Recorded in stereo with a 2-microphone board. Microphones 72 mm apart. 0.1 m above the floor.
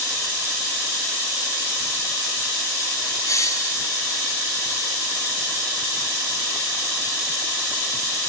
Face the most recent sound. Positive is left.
turn(degrees=45)  # may be behind; listen again after turning